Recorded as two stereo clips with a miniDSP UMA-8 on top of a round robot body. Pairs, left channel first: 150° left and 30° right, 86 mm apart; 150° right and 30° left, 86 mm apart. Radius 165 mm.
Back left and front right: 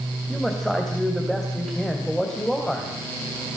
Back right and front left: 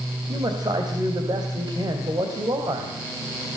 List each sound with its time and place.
0.3 s a man speaking: 65° left, 3.5 m